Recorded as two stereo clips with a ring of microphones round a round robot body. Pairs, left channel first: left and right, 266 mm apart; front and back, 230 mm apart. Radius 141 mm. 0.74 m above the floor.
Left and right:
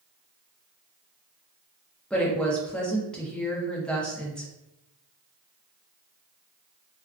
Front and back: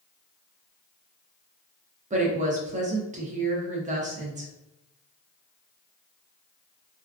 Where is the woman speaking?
175° left, 0.7 m.